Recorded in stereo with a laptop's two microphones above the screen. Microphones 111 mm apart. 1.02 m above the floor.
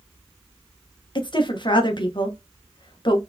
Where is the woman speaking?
45° left (ahead or behind), 0.9 m.